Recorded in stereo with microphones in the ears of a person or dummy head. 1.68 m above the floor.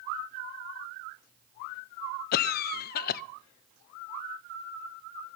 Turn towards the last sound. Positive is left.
turn(degrees=55)  # may be behind; listen again after turning